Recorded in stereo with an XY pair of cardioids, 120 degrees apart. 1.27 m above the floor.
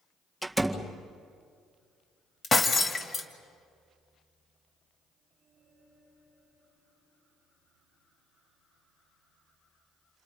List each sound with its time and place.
0.4 s a door slam: straight ahead, 1.9 m
2.4 s breaking glass: 35° left, 2.5 m